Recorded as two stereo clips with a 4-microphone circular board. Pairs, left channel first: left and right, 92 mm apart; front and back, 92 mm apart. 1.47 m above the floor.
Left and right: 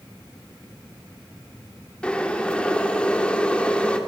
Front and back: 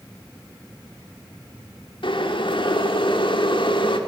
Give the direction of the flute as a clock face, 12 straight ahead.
No flute in this recording.